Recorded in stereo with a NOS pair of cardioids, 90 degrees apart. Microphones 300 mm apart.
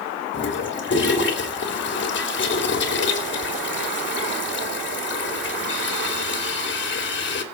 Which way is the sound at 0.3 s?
40° left.